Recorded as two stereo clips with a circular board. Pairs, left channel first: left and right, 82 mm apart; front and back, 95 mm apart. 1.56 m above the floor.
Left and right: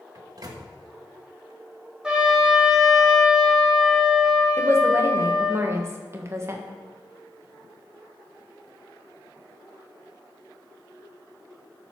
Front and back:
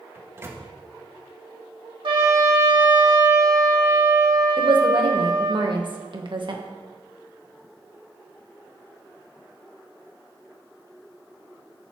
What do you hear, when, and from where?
0.1 s a microwave: 120° right, 1.3 m
2.0 s a trumpet: 170° right, 2 m
4.6 s a woman speaking: 145° right, 1.6 m